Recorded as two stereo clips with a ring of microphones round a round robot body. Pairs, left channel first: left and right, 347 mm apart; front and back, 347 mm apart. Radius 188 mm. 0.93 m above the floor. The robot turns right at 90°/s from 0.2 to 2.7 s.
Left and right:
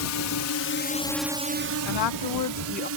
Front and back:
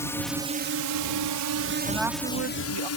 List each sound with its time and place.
0.0 s a drone: 80° left; by 3.0 s 40° right
1.9 s a woman speaking: 75° left; by 2.9 s 150° left